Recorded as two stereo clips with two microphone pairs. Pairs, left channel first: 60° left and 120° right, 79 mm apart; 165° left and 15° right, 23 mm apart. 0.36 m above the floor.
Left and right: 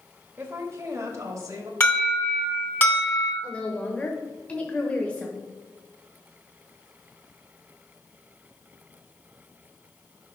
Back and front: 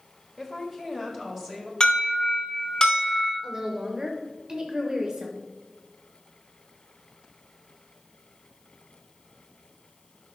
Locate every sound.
0.4 s a woman speaking: 90° right, 1.2 m; by 1.7 s 85° right, 1.9 m
1.8 s an alarm: 120° left, 3 m
3.4 s a woman speaking: 5° left, 1.0 m